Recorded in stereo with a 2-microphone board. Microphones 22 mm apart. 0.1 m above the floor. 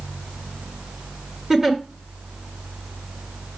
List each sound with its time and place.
1.5 s a giggle: 30° right (ahead or behind), 1.9 m